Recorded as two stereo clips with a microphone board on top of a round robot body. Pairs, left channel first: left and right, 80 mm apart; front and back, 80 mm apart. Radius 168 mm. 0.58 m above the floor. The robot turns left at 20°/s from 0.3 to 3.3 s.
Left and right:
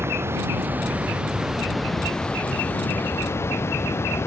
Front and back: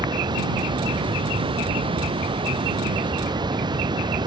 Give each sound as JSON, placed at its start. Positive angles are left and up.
{"t": 0.0, "sound": "running water", "azimuth_deg": -150}